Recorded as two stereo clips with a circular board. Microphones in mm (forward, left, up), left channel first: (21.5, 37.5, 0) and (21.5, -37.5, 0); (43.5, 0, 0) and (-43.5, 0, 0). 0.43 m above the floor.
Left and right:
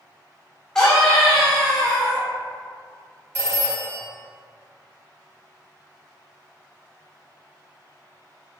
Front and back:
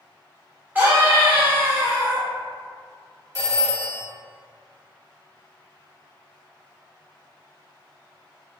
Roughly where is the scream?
Behind.